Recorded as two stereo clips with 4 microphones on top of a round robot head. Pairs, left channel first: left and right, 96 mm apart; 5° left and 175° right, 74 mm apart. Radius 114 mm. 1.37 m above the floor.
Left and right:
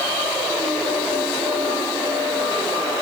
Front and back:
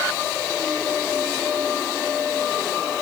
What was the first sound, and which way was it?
Only background noise.